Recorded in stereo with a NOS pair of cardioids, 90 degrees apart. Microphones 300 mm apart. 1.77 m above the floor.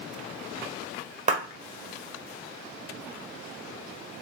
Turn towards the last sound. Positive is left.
turn(degrees=-25)